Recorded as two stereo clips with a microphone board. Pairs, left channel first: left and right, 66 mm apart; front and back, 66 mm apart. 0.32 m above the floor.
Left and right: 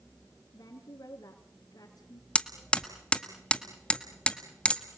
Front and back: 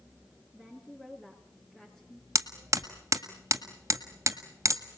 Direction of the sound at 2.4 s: 160° left.